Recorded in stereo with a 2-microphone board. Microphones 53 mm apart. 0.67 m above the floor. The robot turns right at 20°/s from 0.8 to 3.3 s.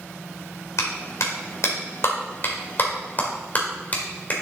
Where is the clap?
75° left (ahead or behind), 2 m; by 4.3 s 35° left (ahead or behind), 2 m.